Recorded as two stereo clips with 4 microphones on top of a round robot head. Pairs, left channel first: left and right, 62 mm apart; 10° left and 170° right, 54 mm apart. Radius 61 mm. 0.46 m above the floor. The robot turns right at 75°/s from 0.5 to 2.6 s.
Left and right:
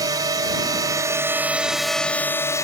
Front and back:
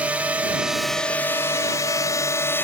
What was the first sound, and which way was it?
A drone, 100° right.